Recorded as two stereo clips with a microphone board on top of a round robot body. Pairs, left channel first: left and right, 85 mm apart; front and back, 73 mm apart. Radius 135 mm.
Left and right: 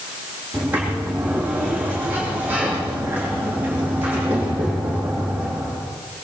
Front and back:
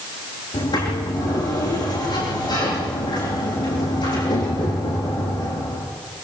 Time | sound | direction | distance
0.5 | a sliding door | 20° right | 9 m